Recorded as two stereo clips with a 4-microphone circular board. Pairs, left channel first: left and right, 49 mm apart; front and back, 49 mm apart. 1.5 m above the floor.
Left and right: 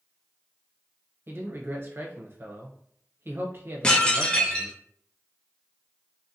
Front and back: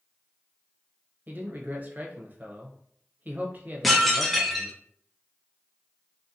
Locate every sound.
1.3 s a man speaking: 130° right, 0.7 m
3.8 s dishes clattering: 80° left, 0.5 m